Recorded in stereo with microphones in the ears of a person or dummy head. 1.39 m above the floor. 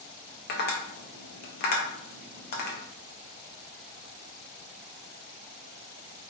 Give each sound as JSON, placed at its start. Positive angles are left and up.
{"t": 0.5, "sound": "tapping", "side_deg": 45, "distance_m": 0.6}